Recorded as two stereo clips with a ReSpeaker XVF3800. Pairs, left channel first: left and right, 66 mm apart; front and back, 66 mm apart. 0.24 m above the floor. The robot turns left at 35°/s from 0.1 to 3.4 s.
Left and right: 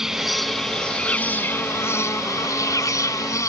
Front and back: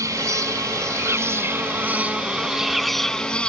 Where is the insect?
175° right; by 3.5 s 70° left.